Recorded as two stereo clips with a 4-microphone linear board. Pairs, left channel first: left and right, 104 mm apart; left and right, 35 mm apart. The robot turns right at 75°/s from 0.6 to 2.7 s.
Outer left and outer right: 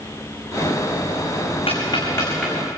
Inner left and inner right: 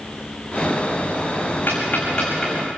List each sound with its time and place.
1.7 s ticking: 65° left (ahead or behind), 5.5 m; by 2.7 s 15° right (ahead or behind), 5.5 m